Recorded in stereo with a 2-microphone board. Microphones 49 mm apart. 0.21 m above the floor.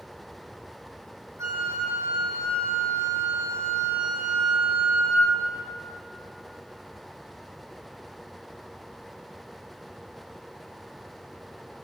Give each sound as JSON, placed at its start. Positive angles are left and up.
{"t": 1.4, "sound": "a flute", "side_deg": -80, "distance_m": 9.0}